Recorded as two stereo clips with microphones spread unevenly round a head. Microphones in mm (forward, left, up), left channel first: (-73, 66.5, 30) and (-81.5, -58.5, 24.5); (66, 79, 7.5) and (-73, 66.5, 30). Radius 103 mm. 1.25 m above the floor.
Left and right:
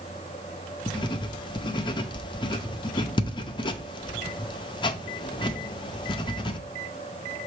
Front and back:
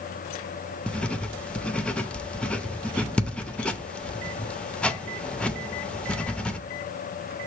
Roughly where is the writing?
Left.